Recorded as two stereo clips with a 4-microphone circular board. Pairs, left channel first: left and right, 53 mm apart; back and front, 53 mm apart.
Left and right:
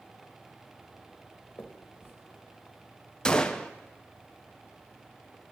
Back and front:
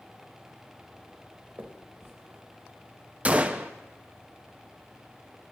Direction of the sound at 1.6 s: 40° left.